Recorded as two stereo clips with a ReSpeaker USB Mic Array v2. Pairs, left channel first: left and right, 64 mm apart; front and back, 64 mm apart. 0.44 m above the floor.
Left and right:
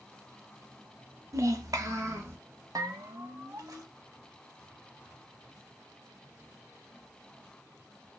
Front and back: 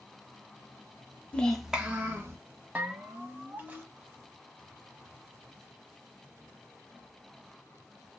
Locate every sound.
1.3 s a child speaking: 70° right, 0.6 m; by 2.4 s 130° right, 1.0 m
2.8 s a bell: 115° right, 0.6 m